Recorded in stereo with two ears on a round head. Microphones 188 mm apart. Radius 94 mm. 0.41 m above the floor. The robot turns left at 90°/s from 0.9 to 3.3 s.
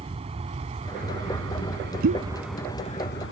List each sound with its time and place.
0.0 s an aircraft: 30° right (ahead or behind); by 3.3 s 65° left (ahead or behind)
2.0 s a pop: 65° right (ahead or behind); by 3.3 s centre (ahead or behind)